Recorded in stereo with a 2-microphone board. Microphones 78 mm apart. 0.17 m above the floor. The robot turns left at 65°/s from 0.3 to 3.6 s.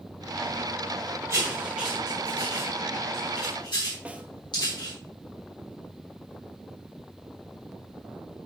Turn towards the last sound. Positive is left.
turn(degrees=-15)  # may be behind; listen again after turning